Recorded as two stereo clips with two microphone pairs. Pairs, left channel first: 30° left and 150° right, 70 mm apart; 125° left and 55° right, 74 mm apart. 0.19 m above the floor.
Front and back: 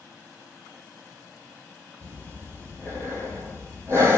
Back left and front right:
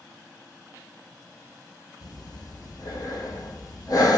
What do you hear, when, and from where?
2.0 s breathing: 160° left, 0.9 m